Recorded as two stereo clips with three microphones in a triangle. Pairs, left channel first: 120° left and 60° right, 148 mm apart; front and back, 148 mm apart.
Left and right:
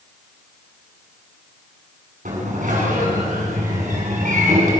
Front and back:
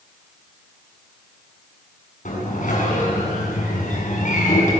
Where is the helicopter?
No helicopter in this recording.